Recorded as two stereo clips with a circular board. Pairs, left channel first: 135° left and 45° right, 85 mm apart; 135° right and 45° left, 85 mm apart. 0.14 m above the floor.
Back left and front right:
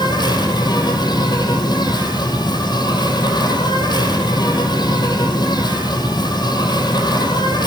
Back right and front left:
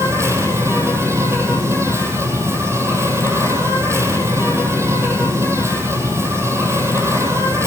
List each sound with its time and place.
0.0 s an insect: 100° left, 4.5 m